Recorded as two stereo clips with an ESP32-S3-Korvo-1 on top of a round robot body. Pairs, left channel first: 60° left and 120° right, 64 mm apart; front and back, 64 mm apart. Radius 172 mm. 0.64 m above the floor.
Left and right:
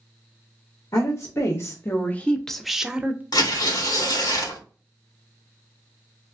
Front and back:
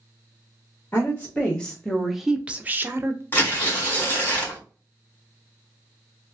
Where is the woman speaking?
55° left, 1.3 m; by 3.2 s 175° right, 1.0 m.